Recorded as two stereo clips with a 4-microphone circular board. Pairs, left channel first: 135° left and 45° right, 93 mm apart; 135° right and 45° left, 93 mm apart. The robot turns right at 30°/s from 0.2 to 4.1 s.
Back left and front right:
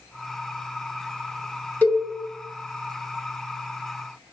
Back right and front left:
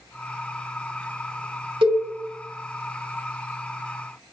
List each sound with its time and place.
1.8 s a cowbell: 60° left, 0.7 m; by 2.0 s 70° left, 0.7 m